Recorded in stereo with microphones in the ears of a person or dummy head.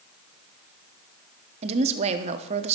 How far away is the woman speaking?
About 0.9 m.